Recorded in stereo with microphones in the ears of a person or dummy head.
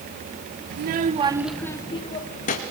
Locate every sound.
0.7 s a child speaking: 60° right (ahead or behind), 1.1 m; by 2.6 s 45° left (ahead or behind), 1.8 m